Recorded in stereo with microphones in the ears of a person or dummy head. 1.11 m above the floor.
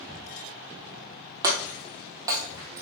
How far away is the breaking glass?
About 1.9 m.